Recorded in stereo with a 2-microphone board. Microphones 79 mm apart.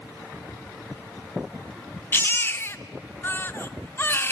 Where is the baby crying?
30° left (ahead or behind), 0.8 m.